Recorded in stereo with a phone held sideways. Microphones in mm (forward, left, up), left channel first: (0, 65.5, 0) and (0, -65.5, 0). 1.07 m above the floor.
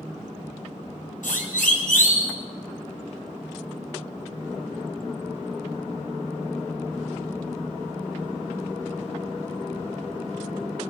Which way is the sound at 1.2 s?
85° left.